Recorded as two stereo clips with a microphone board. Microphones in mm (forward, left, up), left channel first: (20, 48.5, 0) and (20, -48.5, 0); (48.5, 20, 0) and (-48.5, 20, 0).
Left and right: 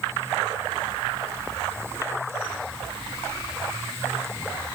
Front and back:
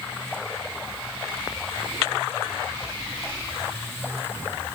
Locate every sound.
Only background noise.